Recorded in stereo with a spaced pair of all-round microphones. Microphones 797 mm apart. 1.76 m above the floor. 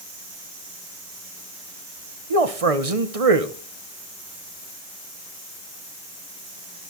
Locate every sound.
2.3 s a man speaking: 45° right (ahead or behind), 1.4 m